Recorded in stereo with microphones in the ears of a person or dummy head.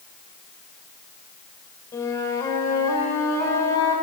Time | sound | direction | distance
1.9 | a flute | 25° left (ahead or behind) | 1.8 m